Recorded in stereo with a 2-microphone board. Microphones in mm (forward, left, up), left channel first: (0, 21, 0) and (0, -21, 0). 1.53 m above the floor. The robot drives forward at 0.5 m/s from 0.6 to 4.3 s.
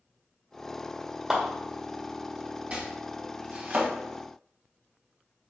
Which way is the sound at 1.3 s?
15° right (ahead or behind).